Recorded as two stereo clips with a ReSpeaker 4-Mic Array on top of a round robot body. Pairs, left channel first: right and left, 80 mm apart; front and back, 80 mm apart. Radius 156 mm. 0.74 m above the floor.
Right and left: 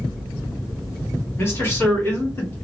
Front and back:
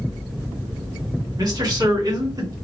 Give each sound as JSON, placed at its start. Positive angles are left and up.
{"t": 1.4, "sound": "a man speaking", "azimuth_deg": -150, "distance_m": 1.8}